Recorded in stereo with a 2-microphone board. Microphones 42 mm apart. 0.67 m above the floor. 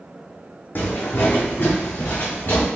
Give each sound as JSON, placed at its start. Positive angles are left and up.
{"t": 0.8, "sound": "footsteps", "side_deg": 45, "distance_m": 1.6}